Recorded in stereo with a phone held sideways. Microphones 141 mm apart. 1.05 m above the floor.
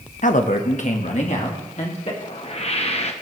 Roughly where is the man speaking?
Left.